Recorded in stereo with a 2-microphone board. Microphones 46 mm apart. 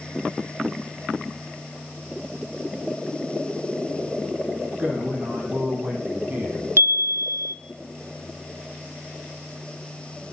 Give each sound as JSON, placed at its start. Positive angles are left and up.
{"t": 4.8, "sound": "a man speaking", "side_deg": -45, "distance_m": 5.5}
{"t": 6.8, "sound": "a chime", "side_deg": -65, "distance_m": 0.7}